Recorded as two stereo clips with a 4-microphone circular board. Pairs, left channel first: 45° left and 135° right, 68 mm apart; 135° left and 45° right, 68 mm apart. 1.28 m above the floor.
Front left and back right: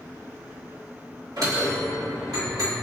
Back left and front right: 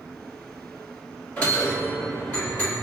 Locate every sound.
1.4 s a bell: 160° right, 1.7 m